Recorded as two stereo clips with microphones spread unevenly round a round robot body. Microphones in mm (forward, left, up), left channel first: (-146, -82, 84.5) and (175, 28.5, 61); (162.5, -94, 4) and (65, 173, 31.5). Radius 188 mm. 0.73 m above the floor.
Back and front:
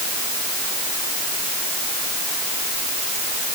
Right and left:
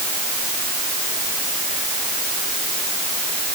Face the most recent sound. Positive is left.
No sound to turn to.